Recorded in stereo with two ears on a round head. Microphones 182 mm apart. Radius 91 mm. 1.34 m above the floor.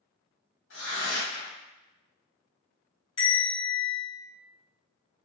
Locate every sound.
0.7 s tearing paper: 65° left (ahead or behind), 1.8 m
3.2 s a bell: 25° left (ahead or behind), 1.8 m